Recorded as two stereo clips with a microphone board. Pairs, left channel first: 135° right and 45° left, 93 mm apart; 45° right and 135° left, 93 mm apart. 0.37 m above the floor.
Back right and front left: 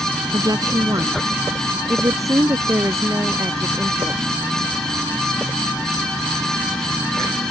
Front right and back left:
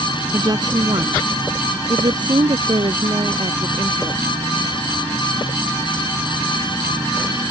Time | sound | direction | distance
0.3 | a woman speaking | 90° left | ?